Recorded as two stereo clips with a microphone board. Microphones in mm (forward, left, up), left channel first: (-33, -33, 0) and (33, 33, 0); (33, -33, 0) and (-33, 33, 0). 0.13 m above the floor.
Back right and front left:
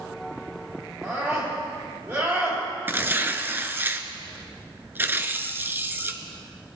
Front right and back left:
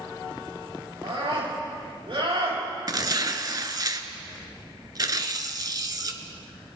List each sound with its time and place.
1.0 s a scream: 105° left, 5 m
2.9 s tearing paper: 105° left, 0.6 m